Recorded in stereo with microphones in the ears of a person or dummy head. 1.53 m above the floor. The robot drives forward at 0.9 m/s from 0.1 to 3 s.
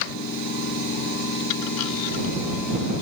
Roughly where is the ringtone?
I don't hear a ringtone.